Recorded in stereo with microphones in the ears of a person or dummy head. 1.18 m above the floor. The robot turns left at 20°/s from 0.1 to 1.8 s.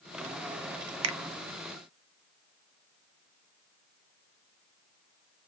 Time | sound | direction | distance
1.0 | a finger snap | 80° right | 0.5 m